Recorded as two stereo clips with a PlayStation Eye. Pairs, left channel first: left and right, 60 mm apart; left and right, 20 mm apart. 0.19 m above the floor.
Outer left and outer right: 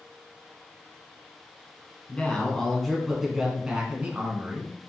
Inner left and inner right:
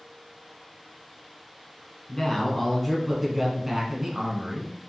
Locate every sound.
2.1 s a man speaking: 20° left (ahead or behind), 1.5 m; by 4.7 s 35° right (ahead or behind), 1.5 m